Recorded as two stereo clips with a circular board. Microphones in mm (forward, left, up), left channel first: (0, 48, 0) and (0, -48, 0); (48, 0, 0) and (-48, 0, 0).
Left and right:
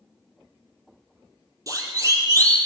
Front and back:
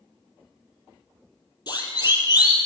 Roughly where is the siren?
Ahead right.